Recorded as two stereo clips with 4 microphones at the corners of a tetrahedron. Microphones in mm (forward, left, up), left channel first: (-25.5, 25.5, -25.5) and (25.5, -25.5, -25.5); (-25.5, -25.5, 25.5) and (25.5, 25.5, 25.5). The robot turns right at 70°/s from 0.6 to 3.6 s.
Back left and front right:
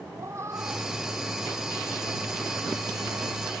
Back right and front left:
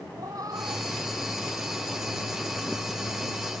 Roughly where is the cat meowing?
Ahead.